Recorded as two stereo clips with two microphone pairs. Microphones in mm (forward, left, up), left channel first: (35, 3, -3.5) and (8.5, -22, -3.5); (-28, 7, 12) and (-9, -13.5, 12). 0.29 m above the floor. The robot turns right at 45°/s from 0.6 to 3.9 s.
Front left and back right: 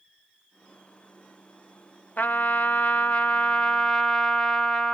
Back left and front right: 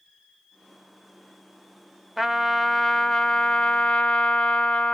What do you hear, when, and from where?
2.2 s a trumpet: 25° left, 0.7 m; by 5.0 s 105° left, 0.7 m